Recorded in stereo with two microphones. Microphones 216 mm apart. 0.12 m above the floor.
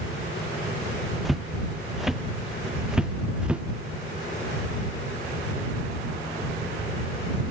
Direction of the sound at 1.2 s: Centre (ahead or behind).